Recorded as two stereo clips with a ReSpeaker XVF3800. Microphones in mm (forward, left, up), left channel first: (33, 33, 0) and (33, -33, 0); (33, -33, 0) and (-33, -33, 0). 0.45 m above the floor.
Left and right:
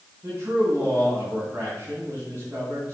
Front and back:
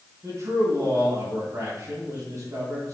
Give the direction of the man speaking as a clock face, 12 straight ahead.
5 o'clock.